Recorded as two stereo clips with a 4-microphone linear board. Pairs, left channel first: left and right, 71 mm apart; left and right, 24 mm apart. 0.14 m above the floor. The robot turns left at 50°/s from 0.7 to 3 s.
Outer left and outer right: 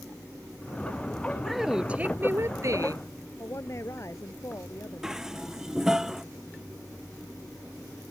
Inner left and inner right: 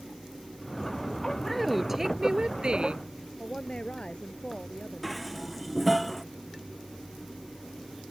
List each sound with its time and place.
1.4 s a woman speaking: straight ahead; by 3.0 s 75° right
3.4 s a woman speaking: 45° left (ahead or behind)
5.0 s dishes clattering: 10° right (ahead or behind)